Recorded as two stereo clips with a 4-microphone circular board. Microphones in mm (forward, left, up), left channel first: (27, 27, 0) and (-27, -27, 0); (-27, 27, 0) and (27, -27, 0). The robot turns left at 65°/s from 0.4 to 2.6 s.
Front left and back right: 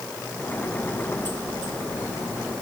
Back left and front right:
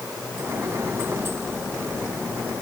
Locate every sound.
Only background noise.